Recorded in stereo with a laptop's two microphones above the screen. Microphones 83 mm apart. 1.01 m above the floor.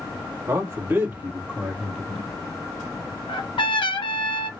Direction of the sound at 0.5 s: 40° right (ahead or behind).